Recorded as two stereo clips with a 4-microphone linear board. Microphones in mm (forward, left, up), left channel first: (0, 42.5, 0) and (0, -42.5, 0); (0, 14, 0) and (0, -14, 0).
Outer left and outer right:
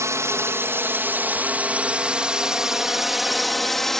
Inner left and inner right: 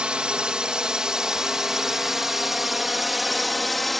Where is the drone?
35° right (ahead or behind); by 4.0 s 5° left (ahead or behind).